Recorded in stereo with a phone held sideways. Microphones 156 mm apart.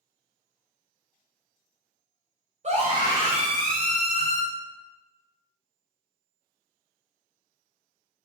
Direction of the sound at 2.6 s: 50° right (ahead or behind).